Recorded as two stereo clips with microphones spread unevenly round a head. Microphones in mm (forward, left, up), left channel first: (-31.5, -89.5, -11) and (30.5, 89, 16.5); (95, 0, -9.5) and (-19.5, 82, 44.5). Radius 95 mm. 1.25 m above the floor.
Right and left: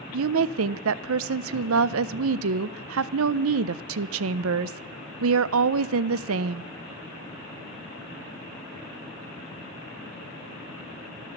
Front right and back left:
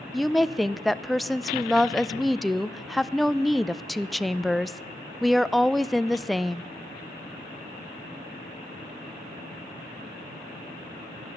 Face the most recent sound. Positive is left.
turn(degrees=60)